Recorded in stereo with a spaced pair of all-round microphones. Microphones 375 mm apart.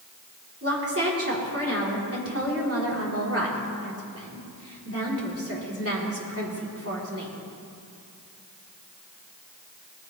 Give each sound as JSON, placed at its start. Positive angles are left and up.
{"t": 0.6, "sound": "a woman speaking", "side_deg": -40, "distance_m": 3.5}